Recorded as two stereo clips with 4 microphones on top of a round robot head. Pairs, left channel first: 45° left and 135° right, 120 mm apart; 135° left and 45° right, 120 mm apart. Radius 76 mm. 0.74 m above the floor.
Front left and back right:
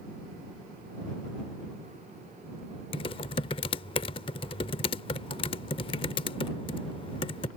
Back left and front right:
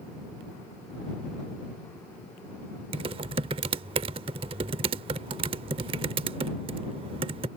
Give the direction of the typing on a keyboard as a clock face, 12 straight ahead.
12 o'clock.